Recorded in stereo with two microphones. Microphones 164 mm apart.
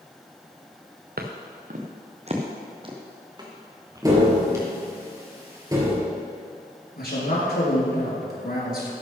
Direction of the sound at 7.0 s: 70° left (ahead or behind).